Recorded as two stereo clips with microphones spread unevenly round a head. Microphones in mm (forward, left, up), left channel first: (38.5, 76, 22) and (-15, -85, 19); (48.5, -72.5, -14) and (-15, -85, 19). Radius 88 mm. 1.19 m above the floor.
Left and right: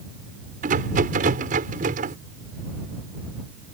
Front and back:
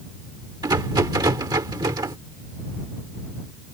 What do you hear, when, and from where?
0.6 s a rattle: 155° right